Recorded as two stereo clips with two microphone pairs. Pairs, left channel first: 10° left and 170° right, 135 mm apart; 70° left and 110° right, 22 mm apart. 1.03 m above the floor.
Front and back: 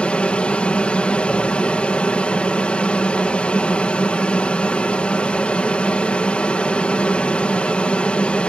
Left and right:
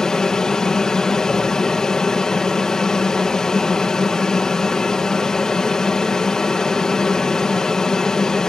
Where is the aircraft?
80° left.